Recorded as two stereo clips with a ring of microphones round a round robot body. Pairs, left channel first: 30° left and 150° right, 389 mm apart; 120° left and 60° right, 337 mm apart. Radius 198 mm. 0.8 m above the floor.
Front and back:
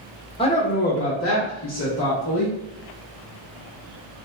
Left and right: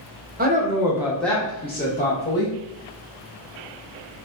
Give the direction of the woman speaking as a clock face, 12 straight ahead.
1 o'clock.